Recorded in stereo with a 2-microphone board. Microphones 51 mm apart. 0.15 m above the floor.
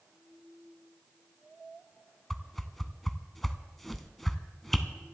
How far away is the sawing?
No sawing in this recording.